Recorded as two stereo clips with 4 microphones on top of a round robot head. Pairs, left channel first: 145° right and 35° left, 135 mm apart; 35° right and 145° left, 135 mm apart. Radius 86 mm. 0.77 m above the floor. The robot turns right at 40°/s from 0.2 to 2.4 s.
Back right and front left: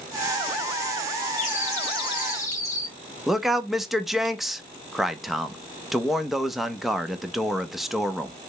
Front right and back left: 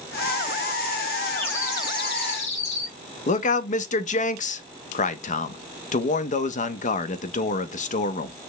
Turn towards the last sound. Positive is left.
turn(degrees=-50)